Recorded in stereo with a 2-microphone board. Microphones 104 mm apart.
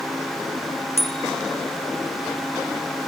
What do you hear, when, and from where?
1.0 s a bicycle bell: 85° left